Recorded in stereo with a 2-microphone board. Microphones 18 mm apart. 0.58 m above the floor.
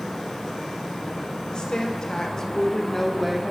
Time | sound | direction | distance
1.5 | a woman speaking | 50° left (ahead or behind) | 2.5 m